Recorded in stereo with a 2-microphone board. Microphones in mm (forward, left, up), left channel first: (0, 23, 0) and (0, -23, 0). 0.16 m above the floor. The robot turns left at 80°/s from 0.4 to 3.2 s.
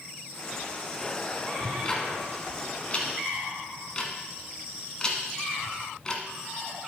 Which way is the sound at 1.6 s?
10° left (ahead or behind).